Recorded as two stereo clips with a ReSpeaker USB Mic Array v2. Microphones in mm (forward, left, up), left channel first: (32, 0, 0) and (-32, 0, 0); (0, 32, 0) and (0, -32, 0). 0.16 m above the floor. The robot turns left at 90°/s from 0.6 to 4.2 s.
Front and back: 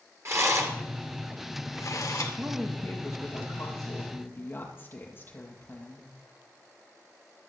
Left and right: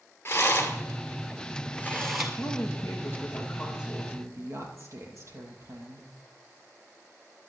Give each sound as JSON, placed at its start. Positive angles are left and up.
{"t": 0.2, "sound": "a rattle", "azimuth_deg": 140, "distance_m": 2.5}
{"t": 2.4, "sound": "a woman speaking", "azimuth_deg": 110, "distance_m": 3.5}